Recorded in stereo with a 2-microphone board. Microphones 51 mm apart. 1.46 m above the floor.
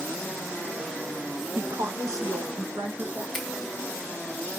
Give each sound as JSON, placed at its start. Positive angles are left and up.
{"t": 1.6, "sound": "a woman speaking", "side_deg": -60, "distance_m": 0.6}
{"t": 3.3, "sound": "a finger snap", "side_deg": 0, "distance_m": 2.0}